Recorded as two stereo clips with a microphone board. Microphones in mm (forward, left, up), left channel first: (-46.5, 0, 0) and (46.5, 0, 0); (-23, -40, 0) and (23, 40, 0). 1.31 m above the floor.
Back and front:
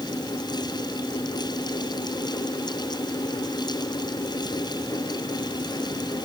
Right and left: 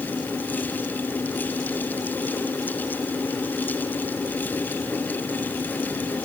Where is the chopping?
I don't hear chopping.